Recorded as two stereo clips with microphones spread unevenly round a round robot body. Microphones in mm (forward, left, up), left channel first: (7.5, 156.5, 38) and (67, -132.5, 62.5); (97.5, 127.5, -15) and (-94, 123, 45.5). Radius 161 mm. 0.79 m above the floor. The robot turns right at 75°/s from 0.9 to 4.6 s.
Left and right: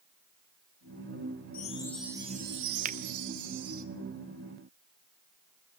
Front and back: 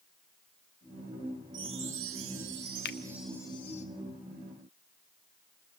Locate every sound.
1.5 s a chime: 155° left, 1.7 m; by 3.9 s 30° right, 1.7 m
2.9 s a finger snap: 15° right, 1.0 m; by 3.0 s 5° right, 1.0 m